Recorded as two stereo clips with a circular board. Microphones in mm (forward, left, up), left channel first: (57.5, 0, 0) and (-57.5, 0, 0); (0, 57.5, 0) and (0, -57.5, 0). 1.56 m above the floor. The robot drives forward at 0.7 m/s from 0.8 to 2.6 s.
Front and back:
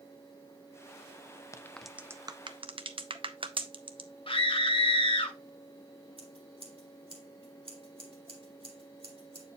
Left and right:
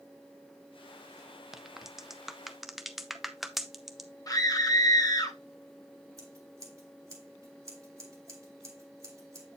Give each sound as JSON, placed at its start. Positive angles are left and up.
{"t": 1.5, "sound": "a crack", "azimuth_deg": -10, "distance_m": 0.5}
{"t": 4.3, "sound": "a scream", "azimuth_deg": 35, "distance_m": 1.1}
{"t": 6.2, "sound": "scissors", "azimuth_deg": -150, "distance_m": 2.0}